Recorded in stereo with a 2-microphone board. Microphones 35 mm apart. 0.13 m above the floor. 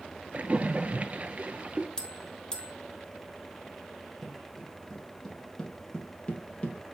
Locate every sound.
0.3 s a splash: 40° right (ahead or behind), 0.6 m
2.0 s a bell: 20° left (ahead or behind), 1.4 m
4.2 s footsteps: centre (ahead or behind), 3 m; by 6.8 s 35° left (ahead or behind), 3 m